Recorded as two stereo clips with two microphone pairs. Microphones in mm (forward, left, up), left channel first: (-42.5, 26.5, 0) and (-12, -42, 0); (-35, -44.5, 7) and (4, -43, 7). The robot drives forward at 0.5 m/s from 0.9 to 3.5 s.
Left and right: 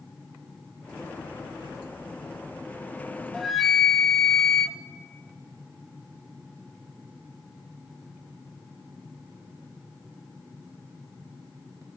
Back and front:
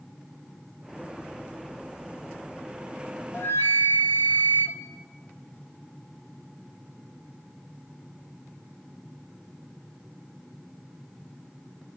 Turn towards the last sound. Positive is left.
turn(degrees=-155)